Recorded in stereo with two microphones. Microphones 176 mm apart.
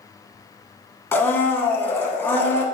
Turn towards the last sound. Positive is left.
turn(degrees=10)  # may be behind; listen again after turning